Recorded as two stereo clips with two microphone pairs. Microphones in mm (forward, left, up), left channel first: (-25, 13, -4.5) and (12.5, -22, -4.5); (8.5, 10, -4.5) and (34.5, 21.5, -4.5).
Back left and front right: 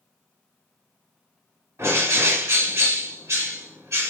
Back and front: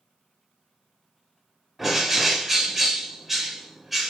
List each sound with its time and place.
1.8 s a bird: 65° right, 1.7 m